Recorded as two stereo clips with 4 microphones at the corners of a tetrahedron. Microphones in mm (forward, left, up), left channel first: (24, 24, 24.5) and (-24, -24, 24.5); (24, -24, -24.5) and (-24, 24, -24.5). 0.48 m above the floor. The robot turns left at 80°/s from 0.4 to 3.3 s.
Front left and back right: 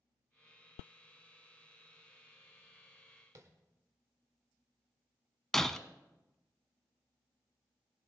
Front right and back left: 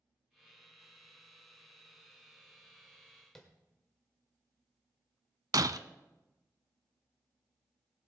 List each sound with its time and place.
3.4 s tapping: 125° right, 1.4 m
5.5 s breaking glass: 130° left, 0.5 m